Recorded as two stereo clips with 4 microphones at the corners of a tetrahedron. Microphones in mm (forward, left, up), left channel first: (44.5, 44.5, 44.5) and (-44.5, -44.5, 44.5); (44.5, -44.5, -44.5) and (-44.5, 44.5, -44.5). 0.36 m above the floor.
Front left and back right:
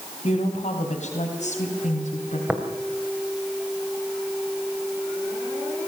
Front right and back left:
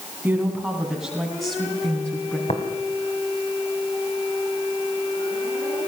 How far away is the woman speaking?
About 3 m.